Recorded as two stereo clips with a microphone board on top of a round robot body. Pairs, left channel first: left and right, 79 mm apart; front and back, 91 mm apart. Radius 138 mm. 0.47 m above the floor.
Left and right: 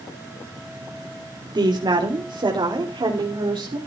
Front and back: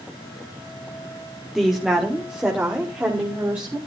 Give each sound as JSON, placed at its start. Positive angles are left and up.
{"t": 1.6, "sound": "a woman speaking", "azimuth_deg": -95, "distance_m": 2.0}